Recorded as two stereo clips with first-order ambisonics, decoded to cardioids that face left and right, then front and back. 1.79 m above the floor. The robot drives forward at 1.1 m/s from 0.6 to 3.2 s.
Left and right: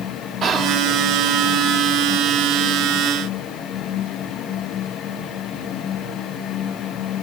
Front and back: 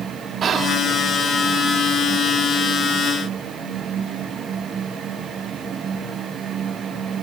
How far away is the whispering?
About 0.7 m.